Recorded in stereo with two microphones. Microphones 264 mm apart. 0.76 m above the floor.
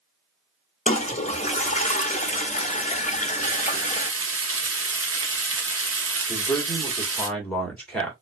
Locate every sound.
0.9 s a toilet flushing: 25° left (ahead or behind), 0.6 m
3.4 s frying: 60° right (ahead or behind), 0.7 m
6.3 s a man speaking: 5° left (ahead or behind), 1.5 m